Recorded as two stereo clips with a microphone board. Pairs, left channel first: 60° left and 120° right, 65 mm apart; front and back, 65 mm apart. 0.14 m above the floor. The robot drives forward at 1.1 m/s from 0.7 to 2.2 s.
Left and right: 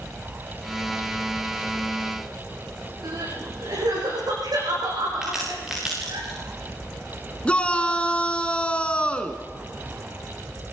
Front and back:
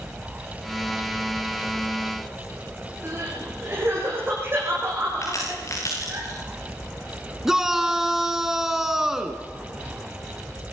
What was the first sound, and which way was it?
Crying, 130° right.